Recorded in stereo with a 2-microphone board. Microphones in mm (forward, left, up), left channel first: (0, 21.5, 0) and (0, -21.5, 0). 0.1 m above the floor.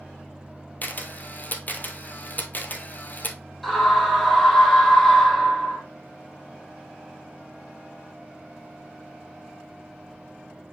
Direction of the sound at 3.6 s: Centre (ahead or behind).